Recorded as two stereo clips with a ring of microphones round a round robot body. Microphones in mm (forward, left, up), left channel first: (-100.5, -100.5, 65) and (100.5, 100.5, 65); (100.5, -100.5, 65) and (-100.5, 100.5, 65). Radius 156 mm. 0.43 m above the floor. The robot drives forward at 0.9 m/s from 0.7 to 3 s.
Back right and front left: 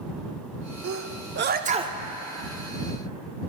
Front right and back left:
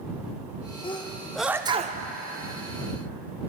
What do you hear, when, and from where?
0.8 s a sneeze: 25° left, 1.2 m; by 2.0 s 120° left, 0.8 m